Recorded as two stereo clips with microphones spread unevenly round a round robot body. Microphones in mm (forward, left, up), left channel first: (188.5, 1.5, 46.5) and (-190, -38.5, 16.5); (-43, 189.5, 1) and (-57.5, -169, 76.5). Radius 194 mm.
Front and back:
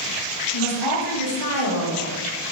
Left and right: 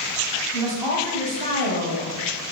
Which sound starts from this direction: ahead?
A woman speaking, at 0.5 s.